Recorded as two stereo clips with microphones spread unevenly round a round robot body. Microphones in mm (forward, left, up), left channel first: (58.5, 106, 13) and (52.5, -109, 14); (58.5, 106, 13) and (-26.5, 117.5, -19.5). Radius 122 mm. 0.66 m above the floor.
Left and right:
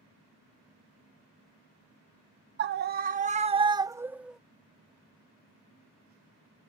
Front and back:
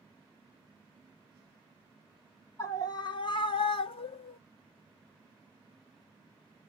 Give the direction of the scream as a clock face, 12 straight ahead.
3 o'clock.